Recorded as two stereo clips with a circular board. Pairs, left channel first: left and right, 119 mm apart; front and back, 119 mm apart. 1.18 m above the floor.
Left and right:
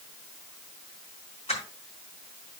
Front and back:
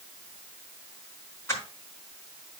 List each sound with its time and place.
1.5 s crushing: 65° left, 5 m